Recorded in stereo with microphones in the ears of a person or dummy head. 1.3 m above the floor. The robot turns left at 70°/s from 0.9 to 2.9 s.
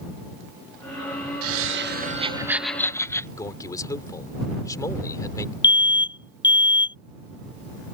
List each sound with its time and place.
1.4 s laughter: 90° right; by 3.3 s 165° left
3.4 s a man speaking: 20° left (ahead or behind)
5.6 s an alarm: 20° left (ahead or behind)